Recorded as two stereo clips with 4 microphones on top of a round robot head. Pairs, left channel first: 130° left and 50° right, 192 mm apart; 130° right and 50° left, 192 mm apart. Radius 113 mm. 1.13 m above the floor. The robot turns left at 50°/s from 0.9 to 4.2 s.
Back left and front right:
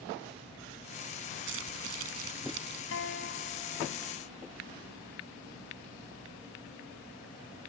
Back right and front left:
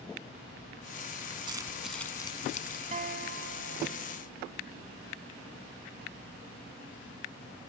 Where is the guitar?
105° left; by 4.2 s 40° left.